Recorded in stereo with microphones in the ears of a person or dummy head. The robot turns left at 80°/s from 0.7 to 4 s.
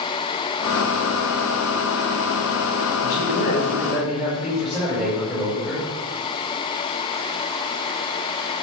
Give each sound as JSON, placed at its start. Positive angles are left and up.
{"t": 3.0, "sound": "a man speaking", "azimuth_deg": 75, "distance_m": 7.5}